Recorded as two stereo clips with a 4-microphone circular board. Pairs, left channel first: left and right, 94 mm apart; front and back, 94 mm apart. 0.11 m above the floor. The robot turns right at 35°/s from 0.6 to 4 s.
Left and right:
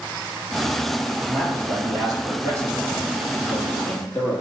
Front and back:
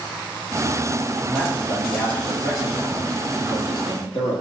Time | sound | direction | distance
1.3 | a man speaking | 90° right | 2.5 m